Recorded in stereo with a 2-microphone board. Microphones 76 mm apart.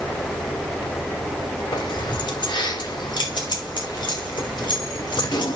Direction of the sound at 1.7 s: 75° left (ahead or behind).